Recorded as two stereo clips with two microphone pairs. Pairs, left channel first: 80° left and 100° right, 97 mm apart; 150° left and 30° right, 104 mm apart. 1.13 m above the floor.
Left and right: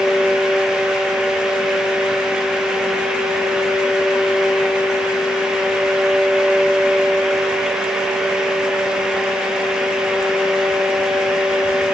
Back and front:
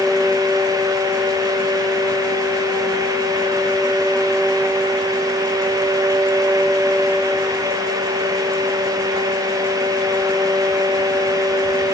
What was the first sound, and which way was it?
Only background noise.